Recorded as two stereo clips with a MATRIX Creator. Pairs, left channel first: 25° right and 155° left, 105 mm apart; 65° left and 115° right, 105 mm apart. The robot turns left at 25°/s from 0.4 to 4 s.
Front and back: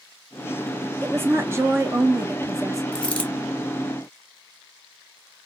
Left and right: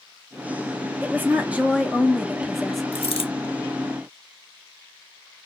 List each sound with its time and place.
1.0 s a woman speaking: 160° right, 0.7 m; by 2.8 s 155° left, 0.7 m
2.9 s a dropped coin: 60° left, 0.6 m; by 3.3 s 50° left, 0.6 m